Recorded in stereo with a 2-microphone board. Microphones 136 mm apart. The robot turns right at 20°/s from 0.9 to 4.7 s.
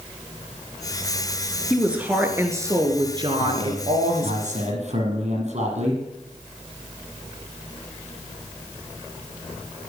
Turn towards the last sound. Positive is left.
turn(degrees=-55)  # may be behind; listen again after turning